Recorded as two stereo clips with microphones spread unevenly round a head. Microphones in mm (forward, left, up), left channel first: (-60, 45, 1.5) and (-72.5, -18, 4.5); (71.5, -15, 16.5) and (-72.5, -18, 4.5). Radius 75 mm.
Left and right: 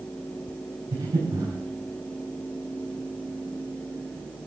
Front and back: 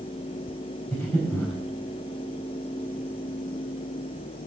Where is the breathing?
70° right, 4 m.